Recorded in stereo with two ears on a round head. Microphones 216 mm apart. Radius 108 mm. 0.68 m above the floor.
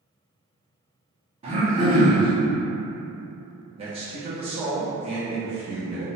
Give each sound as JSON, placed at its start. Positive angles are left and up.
{"t": 1.4, "sound": "throat clearing", "side_deg": -25, "distance_m": 0.9}
{"t": 3.8, "sound": "a man speaking", "side_deg": -25, "distance_m": 0.5}